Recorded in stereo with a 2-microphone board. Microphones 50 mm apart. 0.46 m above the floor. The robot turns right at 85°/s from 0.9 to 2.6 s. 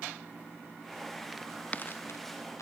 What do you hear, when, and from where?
1.3 s footsteps: 5° right (ahead or behind); by 2.6 s 80° left